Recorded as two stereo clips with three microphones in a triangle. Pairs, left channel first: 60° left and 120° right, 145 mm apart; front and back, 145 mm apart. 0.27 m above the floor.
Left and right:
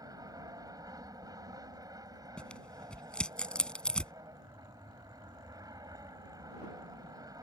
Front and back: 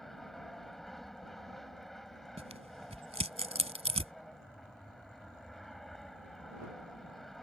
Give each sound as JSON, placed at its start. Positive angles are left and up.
{"t": 0.0, "sound": "an aircraft", "azimuth_deg": -85}
{"t": 2.4, "sound": "tearing paper", "azimuth_deg": 145}